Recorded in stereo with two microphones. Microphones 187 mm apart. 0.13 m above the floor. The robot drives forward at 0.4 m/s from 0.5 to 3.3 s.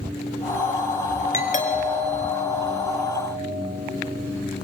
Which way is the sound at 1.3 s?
45° left (ahead or behind).